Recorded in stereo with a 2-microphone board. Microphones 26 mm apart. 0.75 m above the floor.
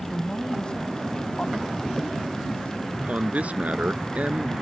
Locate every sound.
0.1 s a man speaking: 25° left (ahead or behind); by 2.8 s 50° left (ahead or behind)
2.9 s a man speaking: 65° right (ahead or behind)